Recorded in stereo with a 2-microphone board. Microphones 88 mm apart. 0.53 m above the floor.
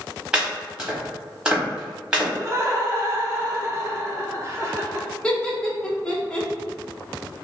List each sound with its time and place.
0.3 s chopping: 10° right (ahead or behind), 1.3 m
2.4 s laughter: 30° right (ahead or behind), 0.8 m
5.2 s laughter: 10° left (ahead or behind), 0.8 m